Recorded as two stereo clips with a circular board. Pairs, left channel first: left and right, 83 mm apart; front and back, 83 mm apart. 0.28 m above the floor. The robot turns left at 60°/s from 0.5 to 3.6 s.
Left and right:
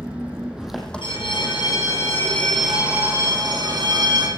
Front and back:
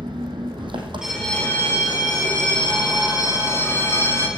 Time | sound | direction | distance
0.0 | an engine running | 165° right | 3 m
1.0 | a bell | 100° left | 6 m